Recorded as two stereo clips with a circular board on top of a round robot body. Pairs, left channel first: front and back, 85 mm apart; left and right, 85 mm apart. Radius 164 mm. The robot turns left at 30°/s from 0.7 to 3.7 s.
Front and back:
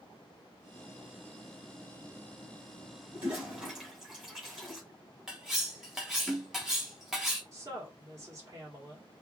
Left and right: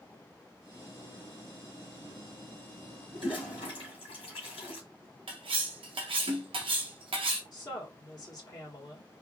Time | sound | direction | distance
3.1 | a toilet flushing | 115° left | 2 m
5.3 | cutlery clinking | 95° right | 0.8 m
7.5 | a woman speaking | 130° left | 1.7 m